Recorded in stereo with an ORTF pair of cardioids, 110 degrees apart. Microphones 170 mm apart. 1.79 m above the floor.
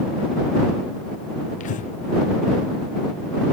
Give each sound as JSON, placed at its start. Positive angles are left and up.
{"t": 1.6, "sound": "breathing", "azimuth_deg": 50}